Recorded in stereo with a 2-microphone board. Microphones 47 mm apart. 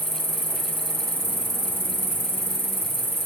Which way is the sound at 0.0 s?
55° right (ahead or behind).